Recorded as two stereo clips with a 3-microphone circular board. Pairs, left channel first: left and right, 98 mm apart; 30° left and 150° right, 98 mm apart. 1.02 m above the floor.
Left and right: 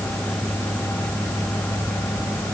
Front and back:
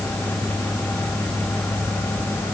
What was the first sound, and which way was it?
Only background noise.